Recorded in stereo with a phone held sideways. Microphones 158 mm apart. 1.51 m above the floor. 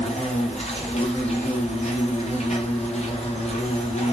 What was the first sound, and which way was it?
An insect, 40° left (ahead or behind).